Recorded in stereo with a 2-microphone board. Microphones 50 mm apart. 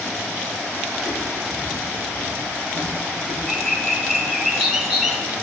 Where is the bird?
5° right (ahead or behind), 1.2 m.